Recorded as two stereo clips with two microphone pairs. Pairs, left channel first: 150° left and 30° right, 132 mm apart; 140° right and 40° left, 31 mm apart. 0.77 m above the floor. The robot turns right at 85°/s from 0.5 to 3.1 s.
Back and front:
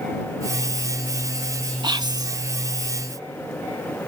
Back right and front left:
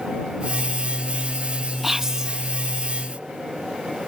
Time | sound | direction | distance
1.8 | whispering | 40° right | ?